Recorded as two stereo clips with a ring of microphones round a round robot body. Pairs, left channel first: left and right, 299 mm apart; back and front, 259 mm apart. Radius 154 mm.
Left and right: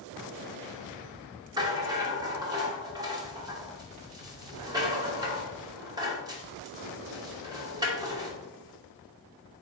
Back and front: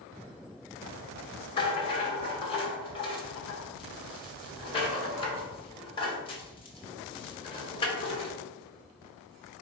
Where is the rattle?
145° right, 1.0 m.